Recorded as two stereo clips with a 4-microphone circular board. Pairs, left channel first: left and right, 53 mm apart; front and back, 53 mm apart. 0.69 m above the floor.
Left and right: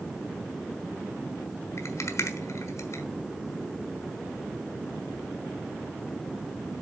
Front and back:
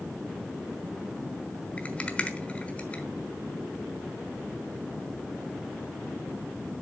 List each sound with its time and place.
1.8 s a rattle: 65° left, 1.1 m